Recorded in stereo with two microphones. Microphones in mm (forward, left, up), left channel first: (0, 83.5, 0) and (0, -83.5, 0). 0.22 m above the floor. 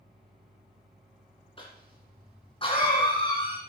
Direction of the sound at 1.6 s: 30° left (ahead or behind).